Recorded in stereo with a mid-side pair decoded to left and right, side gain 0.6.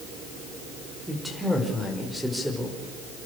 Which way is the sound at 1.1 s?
Straight ahead.